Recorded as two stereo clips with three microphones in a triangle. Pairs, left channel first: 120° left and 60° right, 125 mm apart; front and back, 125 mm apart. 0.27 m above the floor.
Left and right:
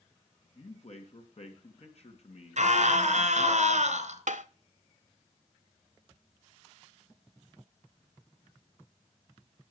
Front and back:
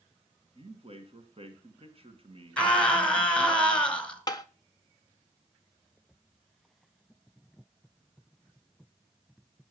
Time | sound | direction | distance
0.6 | a man speaking | 145° left | 2.5 m
2.6 | a scream | 80° right | 3.5 m
4.3 | tapping | 55° right | 0.9 m